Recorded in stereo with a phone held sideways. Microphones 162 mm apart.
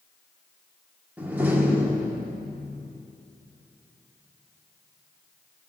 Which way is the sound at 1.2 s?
10° right (ahead or behind).